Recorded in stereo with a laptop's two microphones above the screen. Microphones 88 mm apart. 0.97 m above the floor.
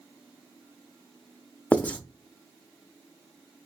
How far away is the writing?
About 0.8 m.